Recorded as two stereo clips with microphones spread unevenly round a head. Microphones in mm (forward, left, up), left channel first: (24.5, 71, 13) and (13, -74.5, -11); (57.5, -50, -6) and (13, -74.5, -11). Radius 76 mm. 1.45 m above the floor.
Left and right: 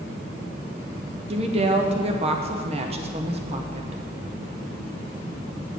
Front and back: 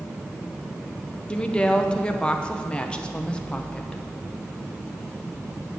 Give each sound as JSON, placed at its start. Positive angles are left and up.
{"t": 1.3, "sound": "a woman speaking", "azimuth_deg": -40, "distance_m": 0.8}